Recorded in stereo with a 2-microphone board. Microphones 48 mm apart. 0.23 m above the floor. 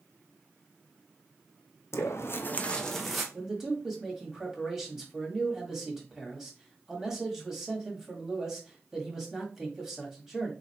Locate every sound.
1.9 s footsteps: 75° left (ahead or behind), 0.6 m; by 3.2 s 5° right (ahead or behind), 0.9 m
3.3 s a man speaking: 10° right (ahead or behind), 1.4 m